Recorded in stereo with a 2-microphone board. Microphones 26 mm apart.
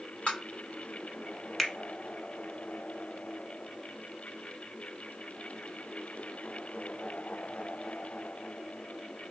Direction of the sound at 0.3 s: 65° left (ahead or behind).